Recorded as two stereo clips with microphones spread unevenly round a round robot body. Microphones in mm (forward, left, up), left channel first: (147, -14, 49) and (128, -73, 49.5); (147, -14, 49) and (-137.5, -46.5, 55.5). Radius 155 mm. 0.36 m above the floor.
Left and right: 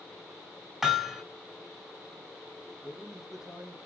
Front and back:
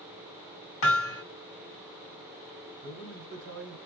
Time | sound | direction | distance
0.8 | hammering | 25° right | 1.8 m
2.8 | a man speaking | 175° left | 1.9 m